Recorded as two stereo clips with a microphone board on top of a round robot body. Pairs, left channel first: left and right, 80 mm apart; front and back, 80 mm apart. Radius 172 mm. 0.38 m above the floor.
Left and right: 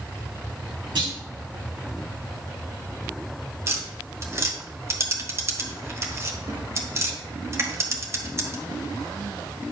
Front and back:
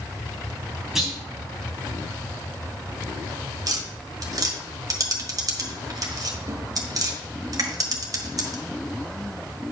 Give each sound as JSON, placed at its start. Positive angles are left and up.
{"t": 0.9, "sound": "a clunk", "azimuth_deg": -95, "distance_m": 4.0}
{"t": 3.7, "sound": "tapping", "azimuth_deg": -145, "distance_m": 1.5}